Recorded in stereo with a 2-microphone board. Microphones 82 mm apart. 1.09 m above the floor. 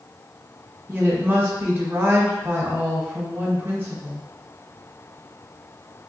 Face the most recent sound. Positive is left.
turn(degrees=-25)  # may be behind; listen again after turning